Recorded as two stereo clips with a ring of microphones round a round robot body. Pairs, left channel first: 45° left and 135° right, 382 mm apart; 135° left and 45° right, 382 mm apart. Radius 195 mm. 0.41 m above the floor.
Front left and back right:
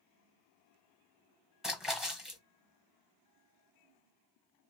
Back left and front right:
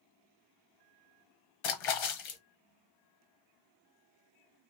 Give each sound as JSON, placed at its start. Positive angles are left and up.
{"t": 1.6, "sound": "a splash", "azimuth_deg": 135, "distance_m": 1.1}